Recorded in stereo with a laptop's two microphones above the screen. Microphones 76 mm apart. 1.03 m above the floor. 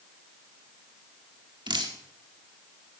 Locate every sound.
1.7 s dripping: 80° right, 1.5 m